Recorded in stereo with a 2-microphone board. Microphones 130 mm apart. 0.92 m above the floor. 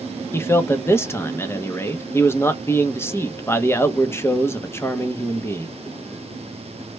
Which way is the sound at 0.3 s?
15° left (ahead or behind).